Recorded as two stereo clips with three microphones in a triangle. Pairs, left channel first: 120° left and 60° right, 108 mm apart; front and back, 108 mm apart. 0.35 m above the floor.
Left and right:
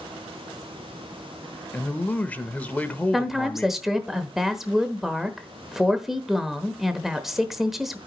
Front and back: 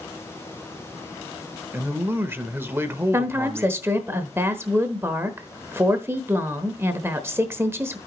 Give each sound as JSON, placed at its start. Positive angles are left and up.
{"t": 1.7, "sound": "a man speaking", "azimuth_deg": 170, "distance_m": 0.8}
{"t": 3.1, "sound": "a woman speaking", "azimuth_deg": -145, "distance_m": 1.0}